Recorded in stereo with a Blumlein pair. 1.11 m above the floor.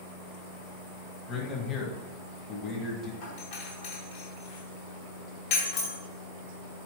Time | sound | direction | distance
1.3 | a man speaking | 20° left | 1.0 m
3.2 | a doorbell | 50° left | 1.7 m